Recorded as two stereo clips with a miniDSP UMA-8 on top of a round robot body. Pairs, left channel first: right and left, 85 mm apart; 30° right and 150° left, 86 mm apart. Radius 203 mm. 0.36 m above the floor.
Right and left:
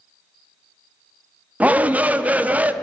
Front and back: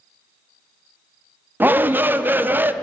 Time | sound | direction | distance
1.6 | a shout | 130° left | 0.9 m